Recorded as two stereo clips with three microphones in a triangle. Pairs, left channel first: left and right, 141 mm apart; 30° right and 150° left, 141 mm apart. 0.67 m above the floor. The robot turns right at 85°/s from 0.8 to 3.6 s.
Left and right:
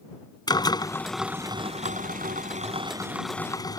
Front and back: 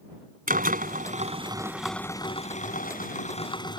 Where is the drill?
150° left; by 3.8 s 25° left.